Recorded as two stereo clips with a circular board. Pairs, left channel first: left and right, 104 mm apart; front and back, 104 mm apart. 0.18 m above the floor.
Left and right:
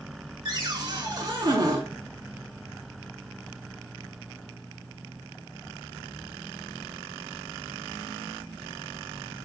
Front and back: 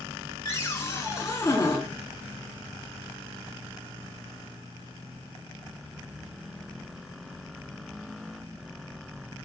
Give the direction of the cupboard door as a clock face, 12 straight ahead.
2 o'clock.